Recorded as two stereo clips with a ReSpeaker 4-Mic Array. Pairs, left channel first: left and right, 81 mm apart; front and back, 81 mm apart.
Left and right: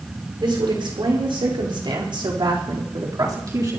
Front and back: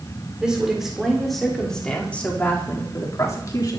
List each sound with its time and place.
0.4 s a woman speaking: 100° right, 5.5 m; by 3.8 s 40° right, 4 m